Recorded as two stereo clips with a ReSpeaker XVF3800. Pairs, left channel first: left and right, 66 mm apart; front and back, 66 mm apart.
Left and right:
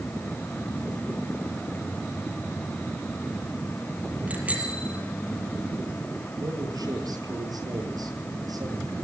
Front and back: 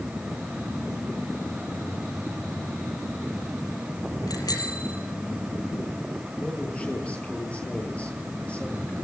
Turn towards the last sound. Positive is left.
turn(degrees=-70)